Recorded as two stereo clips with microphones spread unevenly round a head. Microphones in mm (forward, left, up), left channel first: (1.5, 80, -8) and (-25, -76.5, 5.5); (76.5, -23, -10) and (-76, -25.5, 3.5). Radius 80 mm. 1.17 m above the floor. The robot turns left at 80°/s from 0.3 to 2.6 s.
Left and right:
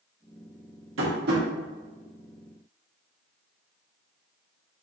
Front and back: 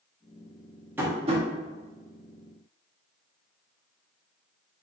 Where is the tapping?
100° right, 2.5 m; by 1.4 s 140° right, 2.5 m.